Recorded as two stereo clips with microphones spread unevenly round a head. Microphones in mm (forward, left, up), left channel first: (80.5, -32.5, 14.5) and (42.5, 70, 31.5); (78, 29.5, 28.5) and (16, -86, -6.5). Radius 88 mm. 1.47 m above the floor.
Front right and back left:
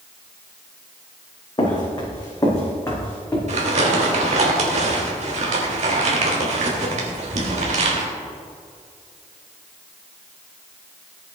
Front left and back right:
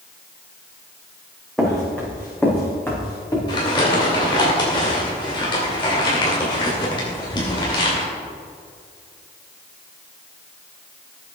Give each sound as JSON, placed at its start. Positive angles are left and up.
{"t": 1.6, "sound": "footsteps", "azimuth_deg": -20, "distance_m": 4.5}
{"t": 3.5, "sound": "crumpling", "azimuth_deg": 120, "distance_m": 2.5}